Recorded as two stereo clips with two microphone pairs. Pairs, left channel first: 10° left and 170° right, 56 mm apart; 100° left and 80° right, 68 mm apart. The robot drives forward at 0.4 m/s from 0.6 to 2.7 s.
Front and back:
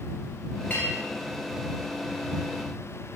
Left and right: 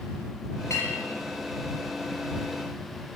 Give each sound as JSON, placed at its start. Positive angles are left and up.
{"t": 0.7, "sound": "a clink", "azimuth_deg": 65, "distance_m": 3.5}